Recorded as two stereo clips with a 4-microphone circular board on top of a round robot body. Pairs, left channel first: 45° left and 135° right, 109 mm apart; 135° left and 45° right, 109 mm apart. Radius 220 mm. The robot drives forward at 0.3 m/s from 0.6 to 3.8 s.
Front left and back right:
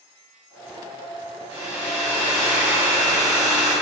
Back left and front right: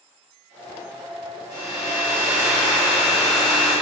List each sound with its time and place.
1.5 s a hair dryer: 100° right, 1.0 m; by 3.7 s 130° right, 1.3 m